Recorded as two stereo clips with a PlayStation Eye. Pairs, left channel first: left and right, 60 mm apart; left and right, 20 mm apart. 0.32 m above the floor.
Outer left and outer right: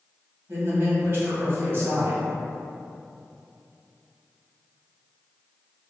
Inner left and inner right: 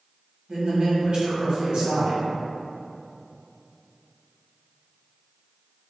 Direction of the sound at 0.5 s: 45° right (ahead or behind).